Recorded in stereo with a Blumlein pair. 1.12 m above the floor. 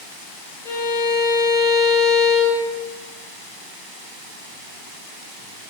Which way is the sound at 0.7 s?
60° left.